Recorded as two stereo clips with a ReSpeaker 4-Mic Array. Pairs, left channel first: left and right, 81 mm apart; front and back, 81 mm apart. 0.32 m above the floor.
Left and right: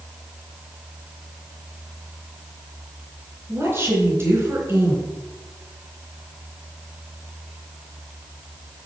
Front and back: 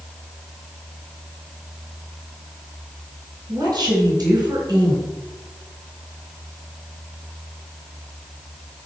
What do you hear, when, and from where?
3.5 s a woman speaking: 140° right, 4 m